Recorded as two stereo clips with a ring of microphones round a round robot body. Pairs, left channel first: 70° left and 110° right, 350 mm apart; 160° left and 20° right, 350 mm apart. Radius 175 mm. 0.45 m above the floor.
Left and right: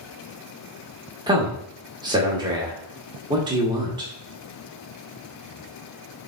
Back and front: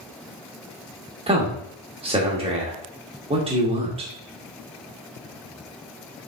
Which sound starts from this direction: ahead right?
A man speaking, at 1.3 s.